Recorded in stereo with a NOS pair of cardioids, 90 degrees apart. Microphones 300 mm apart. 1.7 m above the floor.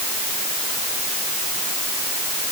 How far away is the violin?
I don't hear a violin.